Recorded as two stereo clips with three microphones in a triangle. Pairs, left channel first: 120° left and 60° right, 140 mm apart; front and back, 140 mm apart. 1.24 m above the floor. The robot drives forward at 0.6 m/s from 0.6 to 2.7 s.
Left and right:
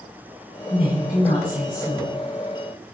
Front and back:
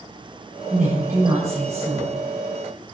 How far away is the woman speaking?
About 5 m.